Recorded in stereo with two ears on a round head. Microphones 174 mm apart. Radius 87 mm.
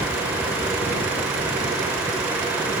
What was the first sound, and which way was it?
Only background noise.